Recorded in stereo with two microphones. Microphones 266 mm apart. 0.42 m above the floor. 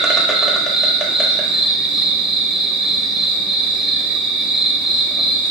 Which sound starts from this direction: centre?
An insect, at 0.0 s.